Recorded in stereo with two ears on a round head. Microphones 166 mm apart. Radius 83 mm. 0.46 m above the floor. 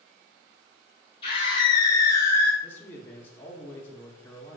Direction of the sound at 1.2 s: 30° left (ahead or behind).